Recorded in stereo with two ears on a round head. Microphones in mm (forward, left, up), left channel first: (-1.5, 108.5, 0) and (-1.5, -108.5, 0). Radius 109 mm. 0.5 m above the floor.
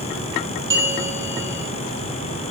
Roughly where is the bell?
Centre.